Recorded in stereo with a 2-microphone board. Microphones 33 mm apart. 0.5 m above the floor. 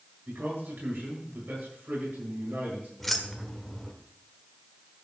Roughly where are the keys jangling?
Centre.